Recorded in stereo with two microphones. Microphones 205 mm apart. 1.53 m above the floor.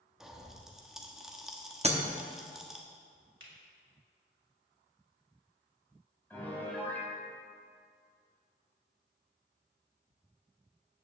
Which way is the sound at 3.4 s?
70° right (ahead or behind).